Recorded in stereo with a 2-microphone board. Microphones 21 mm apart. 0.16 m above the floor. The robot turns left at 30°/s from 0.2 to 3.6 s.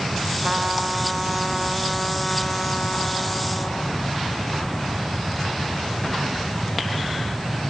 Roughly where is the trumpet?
Behind right.